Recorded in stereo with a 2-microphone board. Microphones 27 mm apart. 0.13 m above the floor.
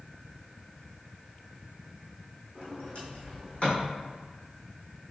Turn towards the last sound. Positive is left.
turn(degrees=50)  # may be behind; listen again after turning